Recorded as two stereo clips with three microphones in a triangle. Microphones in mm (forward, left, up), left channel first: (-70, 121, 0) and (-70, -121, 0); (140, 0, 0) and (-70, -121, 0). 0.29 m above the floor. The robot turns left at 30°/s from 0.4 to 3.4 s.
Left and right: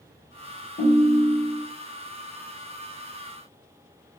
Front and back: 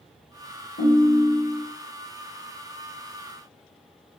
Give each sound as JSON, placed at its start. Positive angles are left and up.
{"t": 0.8, "sound": "a ringtone", "azimuth_deg": 45, "distance_m": 0.8}